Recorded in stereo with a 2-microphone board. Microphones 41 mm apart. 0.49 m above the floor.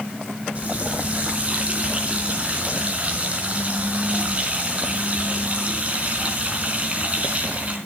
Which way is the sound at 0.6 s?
35° right (ahead or behind).